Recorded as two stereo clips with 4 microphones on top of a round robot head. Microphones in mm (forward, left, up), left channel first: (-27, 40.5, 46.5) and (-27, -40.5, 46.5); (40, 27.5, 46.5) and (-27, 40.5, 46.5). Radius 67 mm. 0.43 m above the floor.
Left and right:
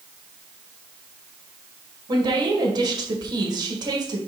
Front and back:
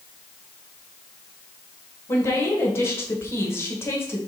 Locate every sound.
2.1 s a woman speaking: 60° right, 1.8 m